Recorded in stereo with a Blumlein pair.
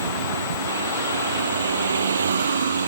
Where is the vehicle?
70° right.